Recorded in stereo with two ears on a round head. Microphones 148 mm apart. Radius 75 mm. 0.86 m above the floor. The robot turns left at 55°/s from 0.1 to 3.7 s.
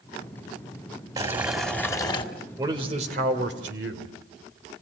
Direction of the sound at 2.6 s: 20° right.